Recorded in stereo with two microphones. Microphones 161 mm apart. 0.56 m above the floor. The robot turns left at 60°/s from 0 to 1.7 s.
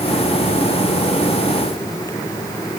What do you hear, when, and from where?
Only background noise.